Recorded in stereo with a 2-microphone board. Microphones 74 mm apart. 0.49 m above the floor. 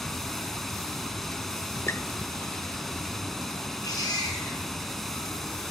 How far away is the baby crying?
About 4 m.